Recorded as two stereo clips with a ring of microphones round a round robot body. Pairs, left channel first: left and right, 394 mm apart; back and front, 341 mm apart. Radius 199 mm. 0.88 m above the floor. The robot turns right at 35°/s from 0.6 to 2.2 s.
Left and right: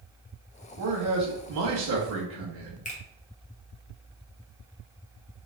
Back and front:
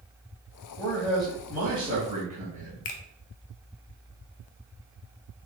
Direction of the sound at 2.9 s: 160° left.